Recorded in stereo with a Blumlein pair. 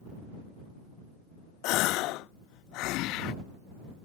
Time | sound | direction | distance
1.6 | a gasp | 40° left | ?